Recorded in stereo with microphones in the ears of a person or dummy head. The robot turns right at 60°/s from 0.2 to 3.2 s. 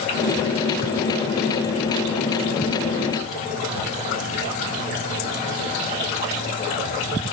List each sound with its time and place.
Only background noise.